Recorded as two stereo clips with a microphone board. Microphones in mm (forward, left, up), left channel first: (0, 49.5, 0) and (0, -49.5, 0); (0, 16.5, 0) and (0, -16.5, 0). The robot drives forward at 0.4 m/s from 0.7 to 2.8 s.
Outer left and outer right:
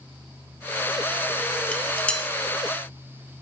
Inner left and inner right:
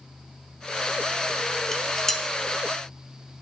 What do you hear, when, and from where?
1.7 s dishes clattering: 10° left (ahead or behind), 1.2 m